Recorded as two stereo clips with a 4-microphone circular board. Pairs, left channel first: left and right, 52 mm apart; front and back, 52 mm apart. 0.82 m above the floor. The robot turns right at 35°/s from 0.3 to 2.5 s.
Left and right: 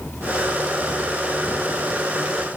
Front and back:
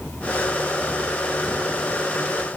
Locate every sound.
Only background noise.